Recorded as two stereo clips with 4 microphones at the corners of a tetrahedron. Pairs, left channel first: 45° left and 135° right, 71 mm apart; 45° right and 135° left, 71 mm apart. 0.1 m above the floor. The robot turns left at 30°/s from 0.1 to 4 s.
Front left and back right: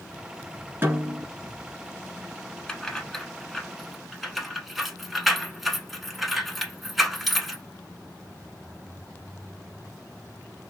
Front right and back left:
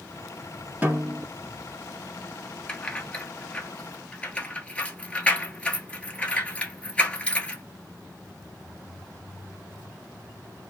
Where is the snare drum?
170° right, 1.2 m; by 1.3 s 175° left, 1.2 m.